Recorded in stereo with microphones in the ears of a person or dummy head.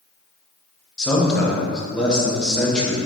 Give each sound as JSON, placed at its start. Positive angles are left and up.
{"t": 1.0, "sound": "a man speaking", "side_deg": 5, "distance_m": 0.9}